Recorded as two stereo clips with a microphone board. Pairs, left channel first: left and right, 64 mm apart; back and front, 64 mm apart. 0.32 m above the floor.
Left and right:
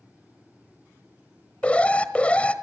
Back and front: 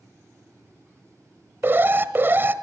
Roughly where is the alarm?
Ahead left.